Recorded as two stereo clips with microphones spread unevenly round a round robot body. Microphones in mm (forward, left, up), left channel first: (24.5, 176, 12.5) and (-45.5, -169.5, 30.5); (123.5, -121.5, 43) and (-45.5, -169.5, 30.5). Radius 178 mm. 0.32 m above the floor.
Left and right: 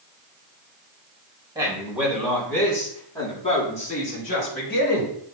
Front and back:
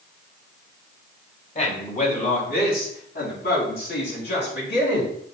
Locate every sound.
1.6 s a man speaking: 25° right, 3 m; by 5.1 s 20° left, 5 m